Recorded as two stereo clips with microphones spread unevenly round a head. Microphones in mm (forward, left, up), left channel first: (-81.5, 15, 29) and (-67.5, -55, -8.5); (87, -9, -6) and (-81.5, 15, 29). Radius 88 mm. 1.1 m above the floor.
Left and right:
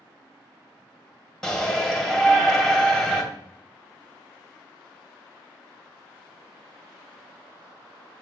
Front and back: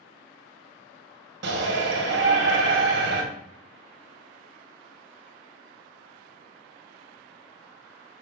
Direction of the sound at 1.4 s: 165° right.